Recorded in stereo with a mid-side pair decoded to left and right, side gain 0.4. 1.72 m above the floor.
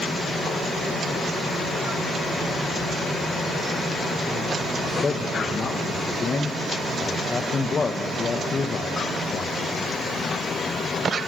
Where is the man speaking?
45° left, 1.9 m.